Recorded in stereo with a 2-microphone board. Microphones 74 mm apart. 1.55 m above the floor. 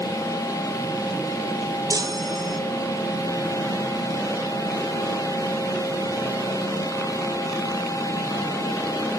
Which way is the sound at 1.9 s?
55° right (ahead or behind).